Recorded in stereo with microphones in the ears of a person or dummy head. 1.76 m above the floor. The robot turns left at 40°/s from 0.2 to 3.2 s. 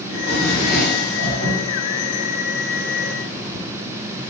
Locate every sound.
0.1 s a drawer: 120° left, 1.5 m; by 1.6 s 65° left, 1.5 m